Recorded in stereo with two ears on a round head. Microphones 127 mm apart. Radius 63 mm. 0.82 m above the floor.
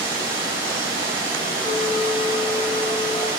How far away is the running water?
About 2.5 m.